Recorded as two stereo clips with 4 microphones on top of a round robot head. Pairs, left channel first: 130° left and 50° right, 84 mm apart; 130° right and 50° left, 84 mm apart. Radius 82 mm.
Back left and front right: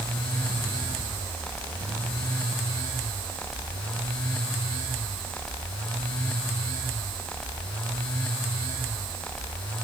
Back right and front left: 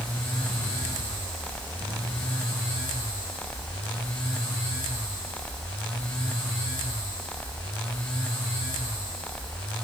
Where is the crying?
No crying in this recording.